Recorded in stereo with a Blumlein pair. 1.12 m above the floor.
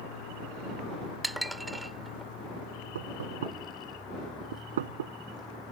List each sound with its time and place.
0.0 s a vehicle: 60° left; by 5.7 s 5° left
1.2 s dishes clattering: 5° right
3.0 s knocking: 60° right